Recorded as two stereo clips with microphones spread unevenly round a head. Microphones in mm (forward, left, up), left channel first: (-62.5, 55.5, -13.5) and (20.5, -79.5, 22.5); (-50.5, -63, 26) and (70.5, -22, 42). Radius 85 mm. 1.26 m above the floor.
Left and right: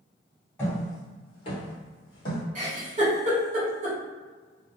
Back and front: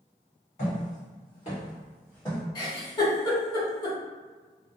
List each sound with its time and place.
0.6 s footsteps: 155° right, 1.7 m; by 2.4 s 105° left, 1.6 m
2.5 s a giggle: 110° right, 1.2 m